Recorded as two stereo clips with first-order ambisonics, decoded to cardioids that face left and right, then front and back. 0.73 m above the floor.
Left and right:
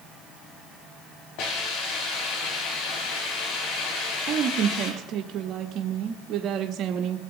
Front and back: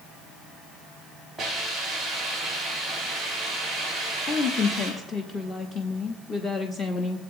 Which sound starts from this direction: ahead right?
A woman speaking, at 4.3 s.